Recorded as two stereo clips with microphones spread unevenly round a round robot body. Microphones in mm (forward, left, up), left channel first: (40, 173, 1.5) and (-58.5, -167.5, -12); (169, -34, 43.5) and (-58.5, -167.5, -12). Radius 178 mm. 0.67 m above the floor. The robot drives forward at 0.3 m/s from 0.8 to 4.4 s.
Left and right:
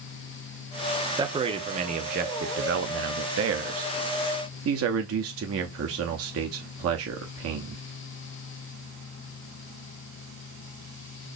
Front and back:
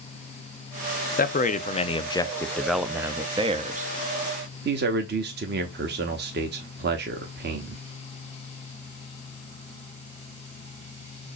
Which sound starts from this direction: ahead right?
A man speaking, at 1.2 s.